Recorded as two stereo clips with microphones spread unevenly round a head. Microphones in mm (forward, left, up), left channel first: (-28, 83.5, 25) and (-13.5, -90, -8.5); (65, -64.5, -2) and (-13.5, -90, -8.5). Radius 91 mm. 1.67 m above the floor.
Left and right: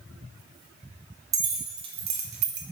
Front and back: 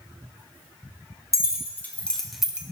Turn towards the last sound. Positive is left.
turn(degrees=-90)